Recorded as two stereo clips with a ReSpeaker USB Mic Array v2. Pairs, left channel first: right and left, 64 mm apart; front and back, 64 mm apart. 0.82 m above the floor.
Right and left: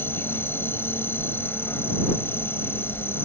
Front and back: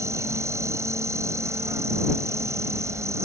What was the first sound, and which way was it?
An insect, 140° right.